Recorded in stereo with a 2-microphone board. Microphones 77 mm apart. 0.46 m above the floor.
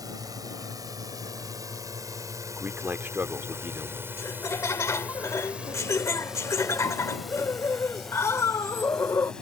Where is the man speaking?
30° right (ahead or behind).